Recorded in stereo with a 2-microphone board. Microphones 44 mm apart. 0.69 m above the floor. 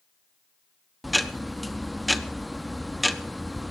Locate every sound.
1.0 s ticking: centre (ahead or behind), 0.5 m